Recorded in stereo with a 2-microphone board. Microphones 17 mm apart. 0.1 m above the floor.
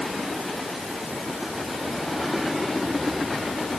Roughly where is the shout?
I don't hear a shout.